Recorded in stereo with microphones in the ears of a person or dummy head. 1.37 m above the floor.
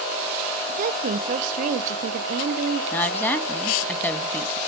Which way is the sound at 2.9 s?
10° left (ahead or behind).